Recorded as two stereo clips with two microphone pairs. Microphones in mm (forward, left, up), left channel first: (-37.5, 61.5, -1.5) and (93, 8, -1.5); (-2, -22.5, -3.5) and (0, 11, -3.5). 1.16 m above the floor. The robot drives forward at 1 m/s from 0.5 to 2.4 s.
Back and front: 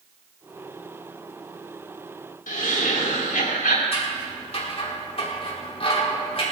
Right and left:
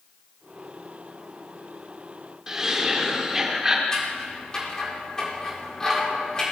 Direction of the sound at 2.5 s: 160° left.